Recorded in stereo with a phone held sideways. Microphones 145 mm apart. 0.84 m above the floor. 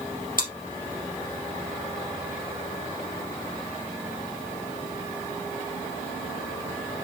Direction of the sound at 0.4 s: 70° left (ahead or behind).